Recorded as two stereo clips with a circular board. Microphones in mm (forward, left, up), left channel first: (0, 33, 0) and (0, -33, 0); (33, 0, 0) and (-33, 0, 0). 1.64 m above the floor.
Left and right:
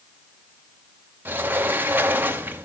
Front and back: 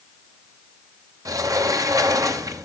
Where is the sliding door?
150° right, 0.8 m.